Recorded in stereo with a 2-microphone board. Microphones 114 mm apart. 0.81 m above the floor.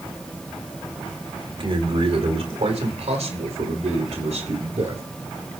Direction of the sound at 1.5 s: 50° right (ahead or behind).